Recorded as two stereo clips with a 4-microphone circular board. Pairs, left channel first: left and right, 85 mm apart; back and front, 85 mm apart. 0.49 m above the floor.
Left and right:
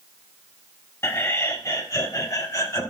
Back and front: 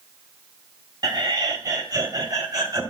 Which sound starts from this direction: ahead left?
Laughter, at 1.0 s.